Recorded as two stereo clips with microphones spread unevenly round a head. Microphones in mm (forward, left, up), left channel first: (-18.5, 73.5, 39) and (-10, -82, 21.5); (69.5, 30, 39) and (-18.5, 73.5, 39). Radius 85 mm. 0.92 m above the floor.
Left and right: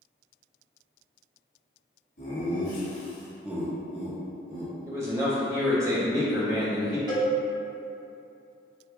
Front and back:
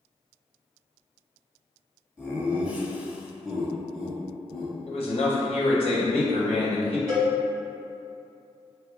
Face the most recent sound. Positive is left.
turn(degrees=-150)